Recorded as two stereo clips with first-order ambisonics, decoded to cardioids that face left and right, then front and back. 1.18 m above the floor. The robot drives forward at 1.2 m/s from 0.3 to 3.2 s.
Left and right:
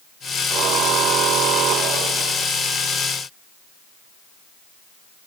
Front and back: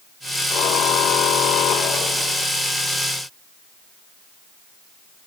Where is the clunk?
No clunk in this recording.